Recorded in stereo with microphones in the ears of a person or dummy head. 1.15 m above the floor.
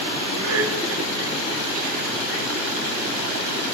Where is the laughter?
75° right (ahead or behind), 2 m; by 2.5 s 35° right (ahead or behind), 2 m.